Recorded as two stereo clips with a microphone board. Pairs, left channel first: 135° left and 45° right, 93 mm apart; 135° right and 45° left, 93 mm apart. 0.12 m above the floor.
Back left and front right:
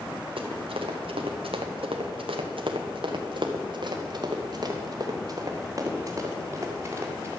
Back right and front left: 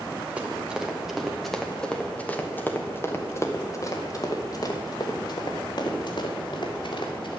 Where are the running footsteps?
30° right, 2.0 m; by 7.4 s 110° right, 3.5 m.